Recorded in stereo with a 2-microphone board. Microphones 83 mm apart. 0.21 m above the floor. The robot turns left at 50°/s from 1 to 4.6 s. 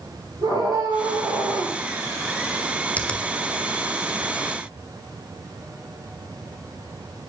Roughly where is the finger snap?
Centre.